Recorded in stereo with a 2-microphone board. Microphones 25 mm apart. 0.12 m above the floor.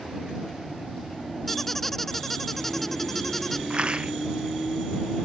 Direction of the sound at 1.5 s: 10° left (ahead or behind).